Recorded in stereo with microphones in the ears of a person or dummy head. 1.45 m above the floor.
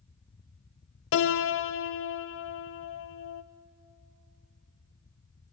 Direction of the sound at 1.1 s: 60° left (ahead or behind).